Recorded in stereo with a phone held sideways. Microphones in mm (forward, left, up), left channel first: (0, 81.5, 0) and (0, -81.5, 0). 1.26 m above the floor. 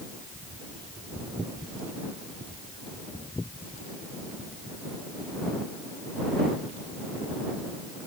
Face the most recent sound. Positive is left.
No sound to turn to.